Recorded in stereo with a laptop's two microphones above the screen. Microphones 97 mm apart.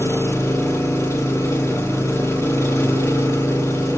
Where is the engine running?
30° left (ahead or behind), 1.2 m.